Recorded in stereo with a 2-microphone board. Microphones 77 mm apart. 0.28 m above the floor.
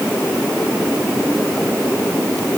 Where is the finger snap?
I don't hear a finger snap.